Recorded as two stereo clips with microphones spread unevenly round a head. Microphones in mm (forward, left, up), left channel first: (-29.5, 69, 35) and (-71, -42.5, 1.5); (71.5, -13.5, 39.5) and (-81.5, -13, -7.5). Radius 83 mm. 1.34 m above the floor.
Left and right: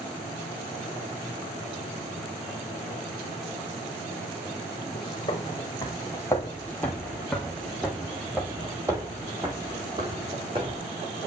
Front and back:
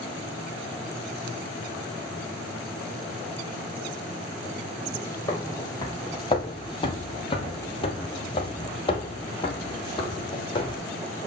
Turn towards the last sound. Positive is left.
turn(degrees=-45)